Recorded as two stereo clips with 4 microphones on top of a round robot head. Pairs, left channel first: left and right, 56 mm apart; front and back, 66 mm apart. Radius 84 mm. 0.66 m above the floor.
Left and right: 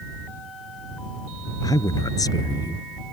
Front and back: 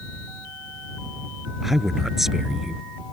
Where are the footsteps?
No footsteps in this recording.